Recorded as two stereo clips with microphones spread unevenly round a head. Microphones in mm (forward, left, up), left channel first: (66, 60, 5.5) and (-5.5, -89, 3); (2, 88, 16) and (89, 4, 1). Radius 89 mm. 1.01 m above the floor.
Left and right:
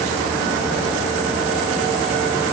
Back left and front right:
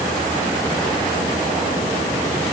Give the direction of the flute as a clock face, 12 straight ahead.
I don't hear a flute.